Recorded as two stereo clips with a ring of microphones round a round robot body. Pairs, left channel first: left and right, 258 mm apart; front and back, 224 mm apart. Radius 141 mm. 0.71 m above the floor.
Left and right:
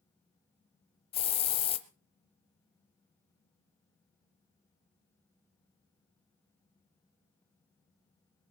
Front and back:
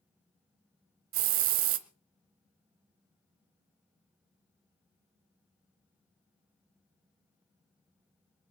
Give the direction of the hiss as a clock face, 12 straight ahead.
7 o'clock.